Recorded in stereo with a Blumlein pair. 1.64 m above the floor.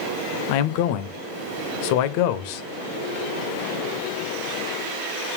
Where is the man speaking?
45° left, 0.5 m.